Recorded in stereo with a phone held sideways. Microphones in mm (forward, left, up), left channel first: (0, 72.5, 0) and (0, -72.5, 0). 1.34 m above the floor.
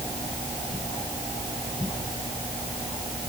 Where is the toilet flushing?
I don't hear a toilet flushing.